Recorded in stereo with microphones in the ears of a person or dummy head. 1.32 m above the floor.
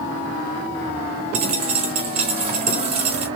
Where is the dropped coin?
30° right (ahead or behind), 1.2 m.